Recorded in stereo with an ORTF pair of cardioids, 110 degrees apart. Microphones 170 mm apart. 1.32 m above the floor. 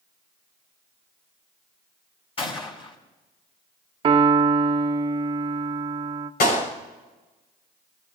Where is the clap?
70° left, 6 m.